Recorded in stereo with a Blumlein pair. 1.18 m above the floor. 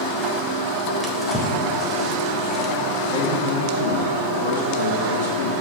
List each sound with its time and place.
1.0 s a drawer: 5° left, 1.4 m
3.1 s a man speaking: 60° left, 2.5 m